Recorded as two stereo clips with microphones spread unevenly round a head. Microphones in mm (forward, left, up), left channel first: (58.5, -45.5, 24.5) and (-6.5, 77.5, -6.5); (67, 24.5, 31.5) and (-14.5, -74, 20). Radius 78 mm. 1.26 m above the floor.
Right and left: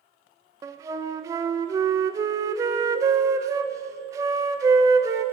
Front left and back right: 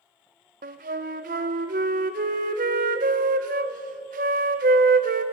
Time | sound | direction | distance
0.6 | a flute | 170° right | 0.6 m